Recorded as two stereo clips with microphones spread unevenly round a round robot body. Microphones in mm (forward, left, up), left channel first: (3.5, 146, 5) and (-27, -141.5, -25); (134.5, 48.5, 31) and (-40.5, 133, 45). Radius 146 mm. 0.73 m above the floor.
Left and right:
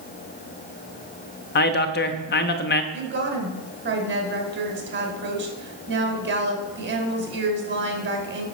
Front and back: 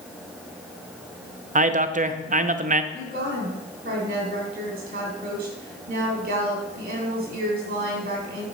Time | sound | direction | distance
1.6 | a man speaking | 130° left | 0.8 m
2.9 | a woman speaking | 145° right | 2.5 m